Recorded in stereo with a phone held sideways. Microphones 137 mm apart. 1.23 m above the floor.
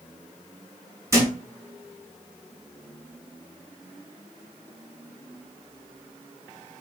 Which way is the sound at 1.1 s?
20° right (ahead or behind).